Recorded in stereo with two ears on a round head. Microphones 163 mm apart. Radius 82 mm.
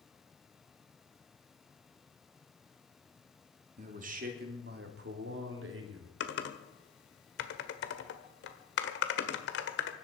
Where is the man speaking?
40° right (ahead or behind), 2.5 m; by 6.1 s 75° right (ahead or behind), 3 m.